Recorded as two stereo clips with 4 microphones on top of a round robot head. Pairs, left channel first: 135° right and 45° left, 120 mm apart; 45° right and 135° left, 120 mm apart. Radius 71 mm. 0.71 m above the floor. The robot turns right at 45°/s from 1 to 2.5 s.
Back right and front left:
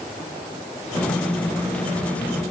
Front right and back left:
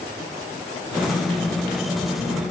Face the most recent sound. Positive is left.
No sound to turn to.